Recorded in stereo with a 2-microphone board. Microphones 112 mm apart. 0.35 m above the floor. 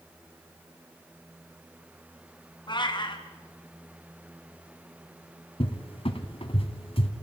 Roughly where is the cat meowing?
Left.